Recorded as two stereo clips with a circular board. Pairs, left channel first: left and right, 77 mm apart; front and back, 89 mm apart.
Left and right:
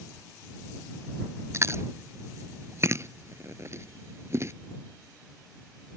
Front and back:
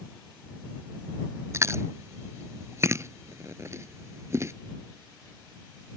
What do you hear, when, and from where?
1.5 s chewing: 130° right